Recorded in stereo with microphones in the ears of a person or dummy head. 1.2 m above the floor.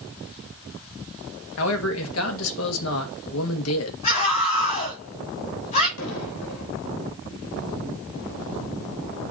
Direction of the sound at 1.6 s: 75° left (ahead or behind).